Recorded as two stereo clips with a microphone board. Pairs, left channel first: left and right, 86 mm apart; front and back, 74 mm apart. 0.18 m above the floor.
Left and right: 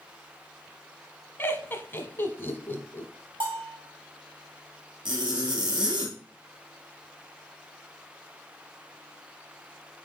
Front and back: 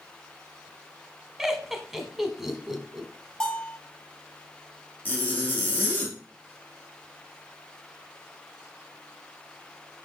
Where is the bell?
80° right, 4.5 m.